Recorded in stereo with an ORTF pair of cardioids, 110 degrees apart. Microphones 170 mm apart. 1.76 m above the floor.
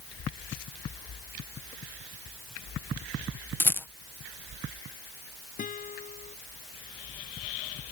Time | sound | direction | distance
3.6 | a rattle | 10° left | ?
5.6 | a guitar | 50° left | ?